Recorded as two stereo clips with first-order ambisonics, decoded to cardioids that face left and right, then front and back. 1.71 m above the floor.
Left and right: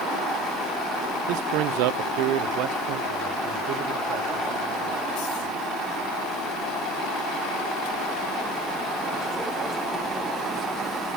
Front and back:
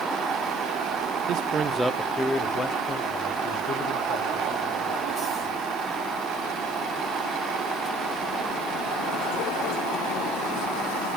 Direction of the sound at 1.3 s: 125° right.